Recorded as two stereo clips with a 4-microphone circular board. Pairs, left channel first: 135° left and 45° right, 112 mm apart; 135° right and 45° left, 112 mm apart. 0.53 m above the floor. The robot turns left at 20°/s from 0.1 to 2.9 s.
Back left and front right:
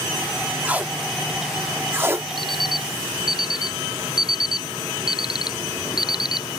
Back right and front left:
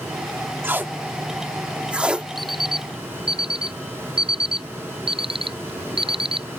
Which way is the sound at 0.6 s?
10° left.